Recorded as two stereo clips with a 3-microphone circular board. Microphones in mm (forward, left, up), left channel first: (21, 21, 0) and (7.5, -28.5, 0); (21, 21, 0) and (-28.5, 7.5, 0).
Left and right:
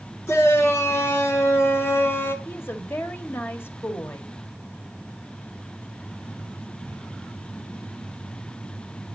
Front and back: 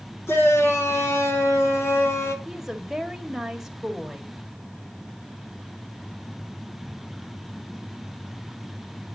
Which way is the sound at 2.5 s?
115° left.